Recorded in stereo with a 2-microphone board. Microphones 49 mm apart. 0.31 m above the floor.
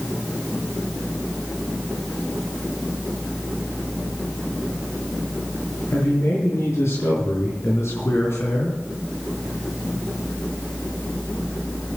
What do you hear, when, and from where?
5.9 s a man speaking: 65° left (ahead or behind), 6 m; by 8.8 s 60° left (ahead or behind), 3.5 m